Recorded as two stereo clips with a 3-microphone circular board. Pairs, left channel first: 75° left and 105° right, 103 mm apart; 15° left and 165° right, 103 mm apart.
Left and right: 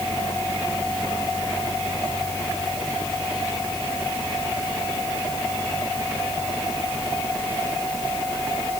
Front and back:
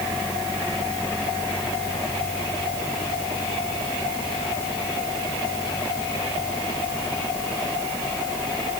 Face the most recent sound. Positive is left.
No sound to turn to.